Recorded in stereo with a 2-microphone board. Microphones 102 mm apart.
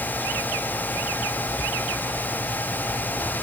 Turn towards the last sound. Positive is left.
No sound to turn to.